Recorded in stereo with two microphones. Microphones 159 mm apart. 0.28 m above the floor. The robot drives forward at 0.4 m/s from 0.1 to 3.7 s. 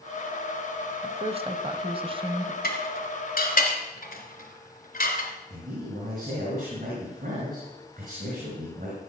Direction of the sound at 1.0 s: 40° right (ahead or behind).